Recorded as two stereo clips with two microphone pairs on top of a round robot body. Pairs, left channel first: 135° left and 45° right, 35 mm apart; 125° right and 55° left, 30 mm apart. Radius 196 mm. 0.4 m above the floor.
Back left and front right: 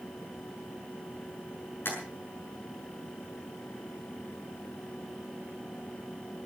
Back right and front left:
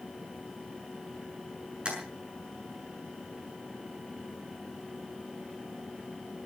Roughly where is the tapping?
Behind left.